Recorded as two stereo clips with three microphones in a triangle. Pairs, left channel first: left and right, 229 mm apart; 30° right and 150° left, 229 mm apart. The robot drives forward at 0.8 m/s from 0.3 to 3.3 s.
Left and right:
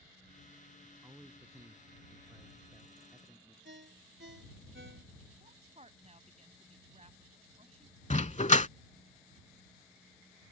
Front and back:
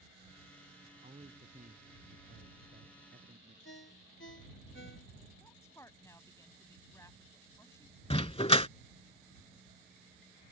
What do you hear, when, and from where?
0.8 s a man speaking: 160° right; by 3.5 s 170° right
3.6 s a ringtone: 60° right
5.4 s a woman speaking: 95° right
8.1 s a dog barking: 30° left